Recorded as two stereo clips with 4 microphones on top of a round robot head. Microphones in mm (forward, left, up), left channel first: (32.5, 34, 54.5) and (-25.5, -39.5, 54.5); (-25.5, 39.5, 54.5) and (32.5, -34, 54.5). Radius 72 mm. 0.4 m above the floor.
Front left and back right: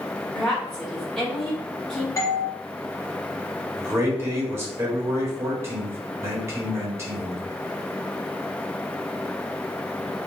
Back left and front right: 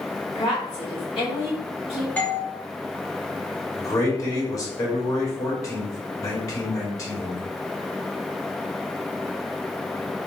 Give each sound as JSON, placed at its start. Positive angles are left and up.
{"t": 0.3, "sound": "a woman speaking", "azimuth_deg": 130, "distance_m": 1.7}
{"t": 2.2, "sound": "a doorbell", "azimuth_deg": 65, "distance_m": 1.6}
{"t": 3.8, "sound": "a man speaking", "azimuth_deg": 175, "distance_m": 1.7}